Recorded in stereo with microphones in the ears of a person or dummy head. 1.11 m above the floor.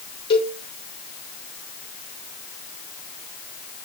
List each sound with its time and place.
0.3 s a cowbell: 20° left (ahead or behind), 1.2 m